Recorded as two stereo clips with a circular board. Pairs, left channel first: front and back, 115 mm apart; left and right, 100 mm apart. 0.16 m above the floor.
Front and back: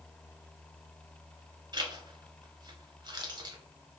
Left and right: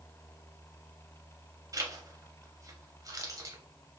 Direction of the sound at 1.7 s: 135° right.